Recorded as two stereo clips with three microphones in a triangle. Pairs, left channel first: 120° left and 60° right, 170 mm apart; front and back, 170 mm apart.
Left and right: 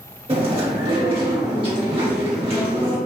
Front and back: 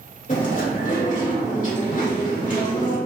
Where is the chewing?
15° right, 1.5 m.